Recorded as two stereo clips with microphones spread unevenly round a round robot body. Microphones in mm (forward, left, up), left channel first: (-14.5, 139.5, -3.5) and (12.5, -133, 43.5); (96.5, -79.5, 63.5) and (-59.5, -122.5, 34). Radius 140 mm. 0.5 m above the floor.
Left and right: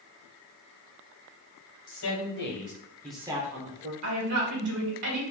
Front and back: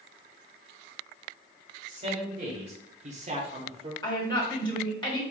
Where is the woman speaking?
50° right, 2 m.